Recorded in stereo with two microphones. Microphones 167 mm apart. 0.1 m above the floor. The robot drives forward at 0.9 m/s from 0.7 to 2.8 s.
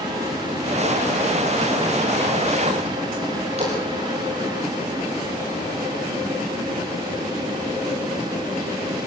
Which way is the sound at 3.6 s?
40° right (ahead or behind).